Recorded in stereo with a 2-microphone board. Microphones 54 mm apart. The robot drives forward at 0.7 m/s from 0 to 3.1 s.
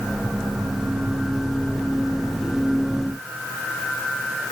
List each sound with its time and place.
Only background noise.